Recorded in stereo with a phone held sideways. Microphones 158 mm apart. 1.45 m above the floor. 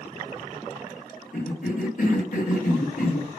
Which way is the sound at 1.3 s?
55° left (ahead or behind).